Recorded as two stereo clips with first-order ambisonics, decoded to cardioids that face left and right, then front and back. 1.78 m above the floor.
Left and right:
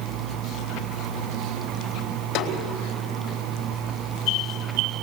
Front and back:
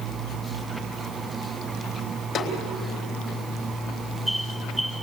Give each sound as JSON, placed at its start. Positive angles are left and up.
{"t": 2.4, "sound": "a snare drum", "azimuth_deg": 50, "distance_m": 4.0}